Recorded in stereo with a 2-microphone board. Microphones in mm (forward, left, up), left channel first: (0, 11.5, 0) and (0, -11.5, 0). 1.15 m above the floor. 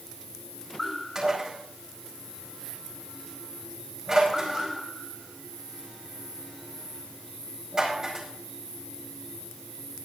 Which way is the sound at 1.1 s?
35° right (ahead or behind).